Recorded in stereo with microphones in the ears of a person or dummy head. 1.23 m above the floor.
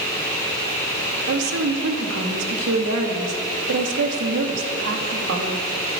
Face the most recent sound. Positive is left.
turn(degrees=-75)  # may be behind; listen again after turning